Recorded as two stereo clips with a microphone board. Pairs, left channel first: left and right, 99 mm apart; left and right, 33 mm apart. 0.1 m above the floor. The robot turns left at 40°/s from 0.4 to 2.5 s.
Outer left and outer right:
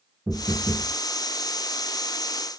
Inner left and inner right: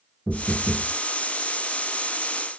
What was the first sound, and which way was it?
Knocking, 15° right (ahead or behind).